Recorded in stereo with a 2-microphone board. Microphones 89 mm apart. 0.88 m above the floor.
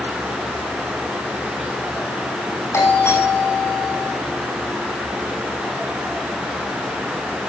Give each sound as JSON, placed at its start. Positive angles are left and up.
{"t": 2.7, "sound": "a doorbell", "side_deg": 30, "distance_m": 9.5}